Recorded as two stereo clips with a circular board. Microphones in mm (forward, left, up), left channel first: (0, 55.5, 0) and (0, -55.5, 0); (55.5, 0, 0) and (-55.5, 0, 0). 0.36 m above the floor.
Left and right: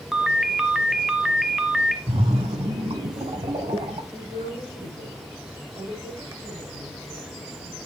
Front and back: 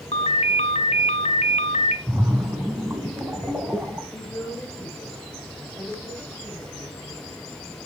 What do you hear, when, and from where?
0.1 s a ringtone: 5° right, 0.9 m
2.1 s a splash: 110° right, 1.2 m
4.1 s a woman speaking: 75° right, 7 m